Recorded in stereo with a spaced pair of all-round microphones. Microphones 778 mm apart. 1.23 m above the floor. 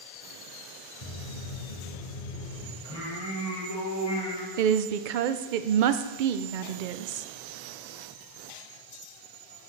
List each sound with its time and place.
1.0 s footsteps: 50° left (ahead or behind), 1.9 m; by 2.7 s 65° left (ahead or behind), 2.5 m
2.8 s singing: 35° left (ahead or behind), 3 m
4.6 s a woman speaking: 85° right, 0.6 m